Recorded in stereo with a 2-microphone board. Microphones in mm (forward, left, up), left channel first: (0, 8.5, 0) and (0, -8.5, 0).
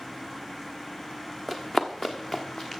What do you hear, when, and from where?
1.5 s running footsteps: 25° left (ahead or behind), 0.8 m; by 2.8 s 35° left (ahead or behind), 1.6 m